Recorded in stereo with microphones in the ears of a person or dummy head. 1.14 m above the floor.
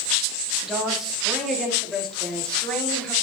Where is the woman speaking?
Centre (ahead or behind), 2.5 m; by 3.1 s 5° left (ahead or behind), 4 m.